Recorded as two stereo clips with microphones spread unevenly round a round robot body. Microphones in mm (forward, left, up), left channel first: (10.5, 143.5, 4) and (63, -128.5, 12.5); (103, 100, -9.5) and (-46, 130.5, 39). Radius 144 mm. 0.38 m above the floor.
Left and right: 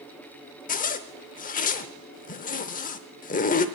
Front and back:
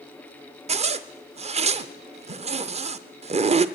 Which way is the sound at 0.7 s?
125° left.